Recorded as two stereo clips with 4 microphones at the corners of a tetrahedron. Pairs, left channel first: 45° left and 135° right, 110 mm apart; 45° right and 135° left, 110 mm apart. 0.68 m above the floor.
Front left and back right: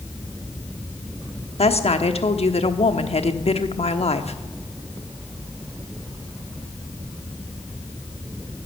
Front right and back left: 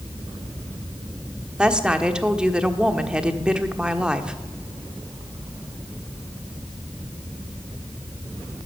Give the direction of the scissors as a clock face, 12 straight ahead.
No scissors in this recording.